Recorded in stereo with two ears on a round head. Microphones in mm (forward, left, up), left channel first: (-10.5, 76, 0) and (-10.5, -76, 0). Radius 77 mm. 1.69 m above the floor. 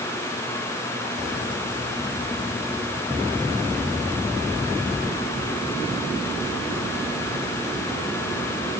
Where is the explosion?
I don't hear an explosion.